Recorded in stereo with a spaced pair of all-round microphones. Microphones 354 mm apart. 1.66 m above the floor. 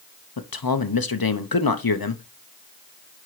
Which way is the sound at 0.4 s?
80° left.